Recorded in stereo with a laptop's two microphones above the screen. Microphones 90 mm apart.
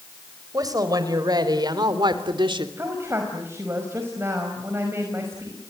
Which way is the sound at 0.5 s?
45° right (ahead or behind).